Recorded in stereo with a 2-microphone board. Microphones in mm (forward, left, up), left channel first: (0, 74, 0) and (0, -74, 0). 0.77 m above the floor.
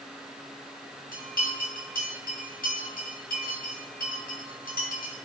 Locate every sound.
1.1 s a bell: 70° left (ahead or behind), 3 m